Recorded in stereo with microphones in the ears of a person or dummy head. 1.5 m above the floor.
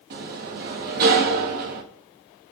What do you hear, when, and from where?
0.1 s a sliding door: 50° right (ahead or behind), 1.4 m